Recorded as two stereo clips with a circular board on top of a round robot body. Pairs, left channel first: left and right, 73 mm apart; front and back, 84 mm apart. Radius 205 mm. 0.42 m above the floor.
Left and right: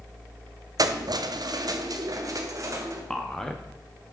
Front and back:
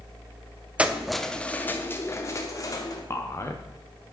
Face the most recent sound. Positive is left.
turn(degrees=15)